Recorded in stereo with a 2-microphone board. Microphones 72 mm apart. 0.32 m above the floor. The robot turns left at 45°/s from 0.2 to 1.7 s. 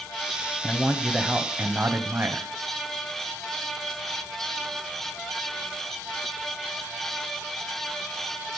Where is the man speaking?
15° left, 1.5 m; by 2.5 s 35° right, 1.5 m.